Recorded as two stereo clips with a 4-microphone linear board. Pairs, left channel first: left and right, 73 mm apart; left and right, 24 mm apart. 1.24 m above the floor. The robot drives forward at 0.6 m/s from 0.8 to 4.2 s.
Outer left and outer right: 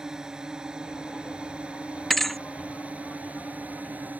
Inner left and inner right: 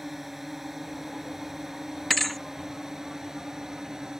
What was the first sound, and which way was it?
A drone, 10° right (ahead or behind).